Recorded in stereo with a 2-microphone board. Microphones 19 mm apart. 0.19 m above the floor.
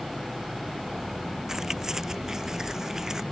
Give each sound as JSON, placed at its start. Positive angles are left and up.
{"t": 1.5, "sound": "keys jangling", "side_deg": -30}